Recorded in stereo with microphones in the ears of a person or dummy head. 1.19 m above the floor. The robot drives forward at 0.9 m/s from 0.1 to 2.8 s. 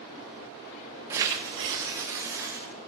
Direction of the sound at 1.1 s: 20° right (ahead or behind).